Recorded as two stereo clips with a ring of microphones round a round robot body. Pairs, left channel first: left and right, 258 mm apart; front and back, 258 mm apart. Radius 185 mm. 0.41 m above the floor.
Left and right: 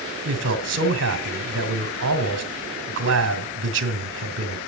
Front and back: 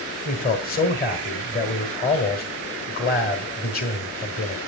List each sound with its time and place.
0.2 s a man speaking: 50° right, 1.3 m